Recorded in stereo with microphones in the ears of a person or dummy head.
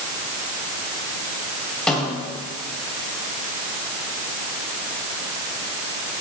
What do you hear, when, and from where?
1.9 s a snare drum: 10° left (ahead or behind), 4 m